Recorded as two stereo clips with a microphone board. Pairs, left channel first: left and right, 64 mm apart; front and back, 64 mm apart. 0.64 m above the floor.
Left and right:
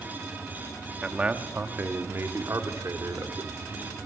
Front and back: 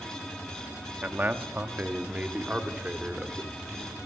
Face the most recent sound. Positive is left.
turn(degrees=-105)